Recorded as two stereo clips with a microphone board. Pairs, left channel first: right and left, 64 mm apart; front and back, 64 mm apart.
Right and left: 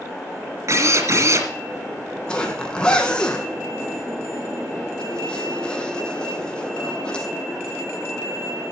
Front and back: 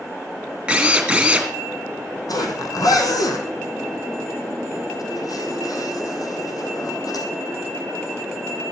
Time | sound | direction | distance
0.7 | a drill | 105° left | 2.5 m
2.3 | a zipper | 15° right | 3 m